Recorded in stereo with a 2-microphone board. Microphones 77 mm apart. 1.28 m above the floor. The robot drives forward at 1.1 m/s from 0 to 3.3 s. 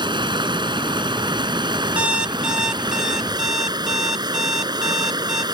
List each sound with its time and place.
0.0 s running water: 85° right; by 5.5 s 65° right (ahead or behind)
2.0 s an alarm clock: 15° right (ahead or behind); by 5.4 s 5° right (ahead or behind)